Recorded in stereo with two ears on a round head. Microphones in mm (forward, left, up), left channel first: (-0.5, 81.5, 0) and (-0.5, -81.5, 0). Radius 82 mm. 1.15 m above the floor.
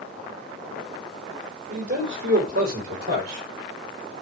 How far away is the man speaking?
About 3 m.